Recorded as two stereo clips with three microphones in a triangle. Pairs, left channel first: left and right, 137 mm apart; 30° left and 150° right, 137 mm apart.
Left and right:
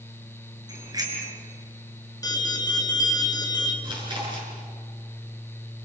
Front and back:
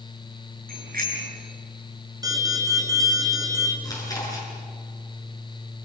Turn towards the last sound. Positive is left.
turn(degrees=-35)